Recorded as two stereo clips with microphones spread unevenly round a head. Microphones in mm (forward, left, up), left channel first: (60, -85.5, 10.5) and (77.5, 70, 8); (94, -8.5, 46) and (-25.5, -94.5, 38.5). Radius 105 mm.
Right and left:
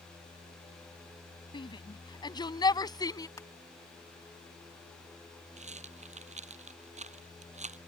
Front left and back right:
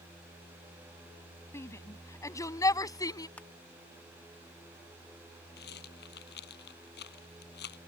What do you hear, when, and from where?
1.5 s a shout: 35° right; by 3.3 s 30° right
3.4 s crushing: 35° right
5.6 s a rattle: 40° left